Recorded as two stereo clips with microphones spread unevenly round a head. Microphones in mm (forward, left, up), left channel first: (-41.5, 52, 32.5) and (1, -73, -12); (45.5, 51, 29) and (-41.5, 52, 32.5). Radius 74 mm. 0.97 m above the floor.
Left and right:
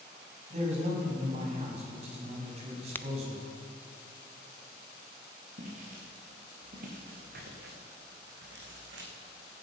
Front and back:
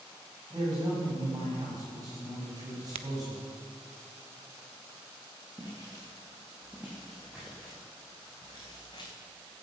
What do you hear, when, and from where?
0.5 s a man speaking: 115° right, 6 m
3.0 s a crack: straight behind, 0.8 m
5.6 s footsteps: 110° right, 5.5 m; by 9.1 s 65° right, 3 m